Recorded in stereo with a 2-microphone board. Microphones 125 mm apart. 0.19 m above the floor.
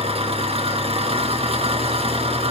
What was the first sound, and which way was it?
An engine running, 50° right (ahead or behind).